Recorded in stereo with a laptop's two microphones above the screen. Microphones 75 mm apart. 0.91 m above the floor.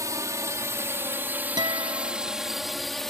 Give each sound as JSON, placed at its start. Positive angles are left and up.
{"t": 0.0, "sound": "a drone", "side_deg": -50}
{"t": 1.6, "sound": "a guitar", "side_deg": -75}